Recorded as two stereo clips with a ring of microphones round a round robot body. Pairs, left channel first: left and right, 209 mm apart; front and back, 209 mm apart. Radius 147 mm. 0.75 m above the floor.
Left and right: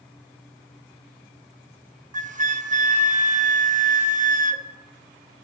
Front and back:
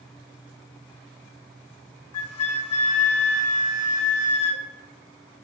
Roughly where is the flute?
Ahead right.